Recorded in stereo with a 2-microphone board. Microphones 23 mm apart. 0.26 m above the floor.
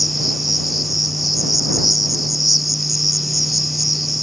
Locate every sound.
0.0 s an insect: centre (ahead or behind)